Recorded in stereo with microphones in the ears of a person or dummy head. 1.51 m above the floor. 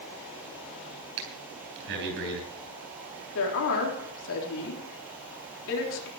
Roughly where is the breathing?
Right.